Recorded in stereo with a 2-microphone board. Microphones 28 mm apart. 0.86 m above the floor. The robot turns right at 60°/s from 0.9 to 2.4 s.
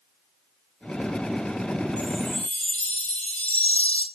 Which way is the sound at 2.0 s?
60° left (ahead or behind).